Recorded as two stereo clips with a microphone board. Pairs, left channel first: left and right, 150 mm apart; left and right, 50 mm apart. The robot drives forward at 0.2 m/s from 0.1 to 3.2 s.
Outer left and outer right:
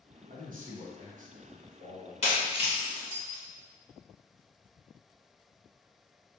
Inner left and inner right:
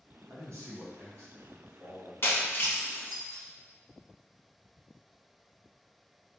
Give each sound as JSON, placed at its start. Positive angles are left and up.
{"t": 0.3, "sound": "a man speaking", "side_deg": -65, "distance_m": 1.1}
{"t": 2.2, "sound": "breaking glass", "side_deg": 45, "distance_m": 0.9}